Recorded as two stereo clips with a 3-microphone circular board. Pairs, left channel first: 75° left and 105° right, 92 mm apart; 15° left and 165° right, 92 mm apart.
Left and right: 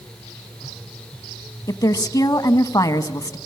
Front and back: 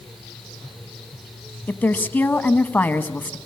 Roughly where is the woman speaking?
Left.